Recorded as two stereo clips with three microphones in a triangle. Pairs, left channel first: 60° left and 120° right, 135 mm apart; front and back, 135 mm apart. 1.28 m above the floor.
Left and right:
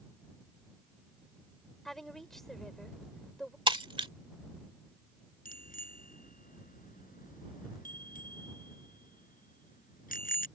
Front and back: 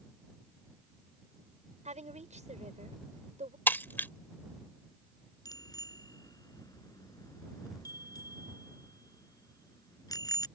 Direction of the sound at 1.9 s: 150° left.